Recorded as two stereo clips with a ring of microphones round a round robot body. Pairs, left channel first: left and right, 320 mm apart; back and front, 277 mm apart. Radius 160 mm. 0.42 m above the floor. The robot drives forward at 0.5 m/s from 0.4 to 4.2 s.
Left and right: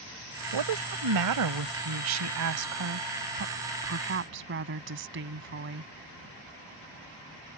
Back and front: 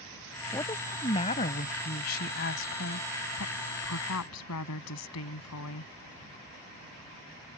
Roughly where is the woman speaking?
Right.